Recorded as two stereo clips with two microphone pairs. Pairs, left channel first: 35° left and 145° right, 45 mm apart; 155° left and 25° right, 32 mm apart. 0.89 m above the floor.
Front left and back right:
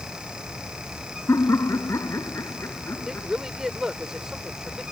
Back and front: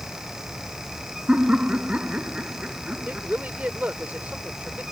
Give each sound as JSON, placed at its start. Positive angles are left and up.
{"t": 1.3, "sound": "laughter", "azimuth_deg": 30}
{"t": 3.0, "sound": "a woman speaking", "azimuth_deg": -65}